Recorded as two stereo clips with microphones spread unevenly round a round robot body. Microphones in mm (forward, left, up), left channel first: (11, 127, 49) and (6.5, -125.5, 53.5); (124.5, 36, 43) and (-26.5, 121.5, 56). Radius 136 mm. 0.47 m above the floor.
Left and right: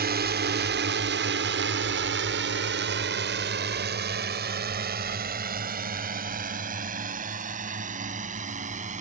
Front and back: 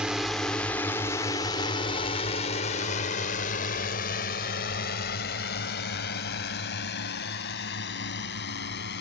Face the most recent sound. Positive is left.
turn(degrees=-30)